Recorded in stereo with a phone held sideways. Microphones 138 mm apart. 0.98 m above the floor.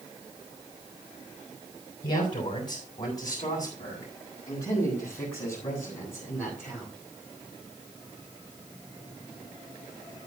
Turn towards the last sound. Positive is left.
turn(degrees=5)  # may be behind; listen again after turning